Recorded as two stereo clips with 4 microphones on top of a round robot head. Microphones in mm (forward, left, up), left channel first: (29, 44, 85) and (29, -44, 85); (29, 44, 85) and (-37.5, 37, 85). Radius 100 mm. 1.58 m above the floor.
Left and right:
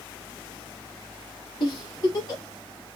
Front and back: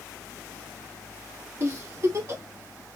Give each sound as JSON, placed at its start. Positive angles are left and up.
{"t": 1.6, "sound": "a giggle", "azimuth_deg": 135, "distance_m": 1.4}